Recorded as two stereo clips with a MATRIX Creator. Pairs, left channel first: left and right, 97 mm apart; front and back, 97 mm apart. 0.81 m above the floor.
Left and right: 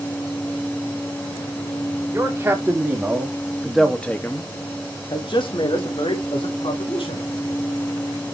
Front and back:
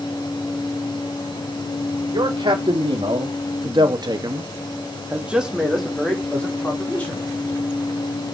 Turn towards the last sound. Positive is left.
turn(degrees=70)